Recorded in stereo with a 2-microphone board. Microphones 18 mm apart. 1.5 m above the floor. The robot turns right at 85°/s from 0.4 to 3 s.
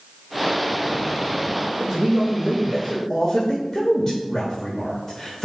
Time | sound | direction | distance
1.8 | a man speaking | 60° right | 1.2 m